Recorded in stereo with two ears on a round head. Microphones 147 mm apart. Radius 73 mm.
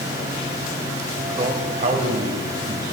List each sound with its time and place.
1.4 s a man speaking: 35° right (ahead or behind), 1.5 m; by 3.0 s 60° right (ahead or behind), 3 m